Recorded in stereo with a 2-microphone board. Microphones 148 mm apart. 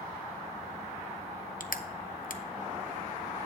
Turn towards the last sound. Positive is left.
turn(degrees=70)  # may be behind; listen again after turning